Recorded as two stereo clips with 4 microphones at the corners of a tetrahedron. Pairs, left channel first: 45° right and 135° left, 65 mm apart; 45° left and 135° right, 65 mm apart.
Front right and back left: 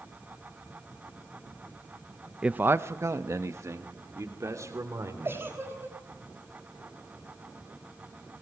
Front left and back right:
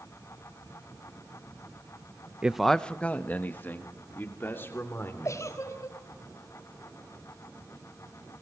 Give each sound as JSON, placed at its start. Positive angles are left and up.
{"t": 2.4, "sound": "a man speaking", "azimuth_deg": 175, "distance_m": 0.6}
{"t": 5.2, "sound": "a giggle", "azimuth_deg": 80, "distance_m": 4.5}